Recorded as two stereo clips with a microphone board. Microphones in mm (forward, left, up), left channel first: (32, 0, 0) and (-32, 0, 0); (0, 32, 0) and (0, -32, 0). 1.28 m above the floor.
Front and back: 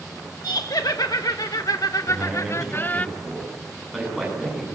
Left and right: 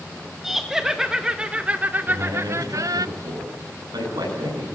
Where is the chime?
I don't hear a chime.